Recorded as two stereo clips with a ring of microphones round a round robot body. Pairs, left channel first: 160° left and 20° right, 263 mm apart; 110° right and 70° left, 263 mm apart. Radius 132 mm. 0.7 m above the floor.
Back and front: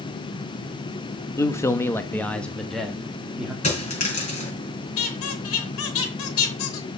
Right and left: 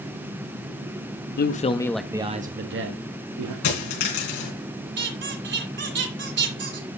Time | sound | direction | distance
1.4 | a man speaking | 130° right | 0.9 m
3.6 | a dropped coin | 135° right | 6 m
5.0 | a squeak | 115° left | 3 m